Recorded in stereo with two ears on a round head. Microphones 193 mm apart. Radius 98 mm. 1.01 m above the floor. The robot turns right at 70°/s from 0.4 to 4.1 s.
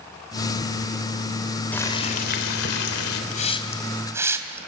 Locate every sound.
1.7 s boiling: 5° left, 3.5 m; by 3.2 s 110° left, 3.5 m
3.3 s a hiss: 40° left (ahead or behind), 2.5 m; by 4.6 s 15° right (ahead or behind), 2.5 m